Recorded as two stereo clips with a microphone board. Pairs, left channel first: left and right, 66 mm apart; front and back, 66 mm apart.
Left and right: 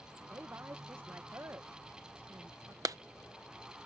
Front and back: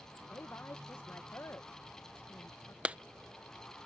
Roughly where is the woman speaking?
Ahead right.